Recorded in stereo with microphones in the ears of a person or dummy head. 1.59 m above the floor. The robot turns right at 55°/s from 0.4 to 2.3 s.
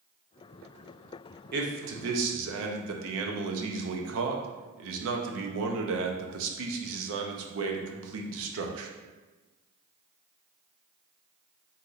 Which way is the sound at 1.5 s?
125° right.